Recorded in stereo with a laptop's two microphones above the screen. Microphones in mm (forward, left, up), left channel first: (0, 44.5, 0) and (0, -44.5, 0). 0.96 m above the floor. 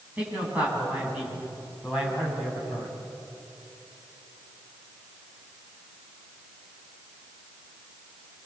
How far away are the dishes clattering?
I don't hear dishes clattering.